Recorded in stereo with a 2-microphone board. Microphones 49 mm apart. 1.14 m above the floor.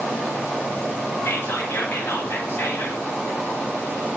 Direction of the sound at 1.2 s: 50° left (ahead or behind).